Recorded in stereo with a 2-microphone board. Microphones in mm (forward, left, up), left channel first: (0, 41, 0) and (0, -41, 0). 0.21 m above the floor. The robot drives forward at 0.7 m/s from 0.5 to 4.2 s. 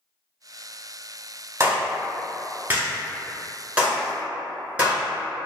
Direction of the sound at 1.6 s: 30° right (ahead or behind).